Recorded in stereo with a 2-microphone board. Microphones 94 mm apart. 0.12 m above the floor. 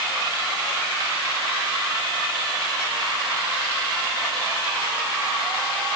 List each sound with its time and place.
Only background noise.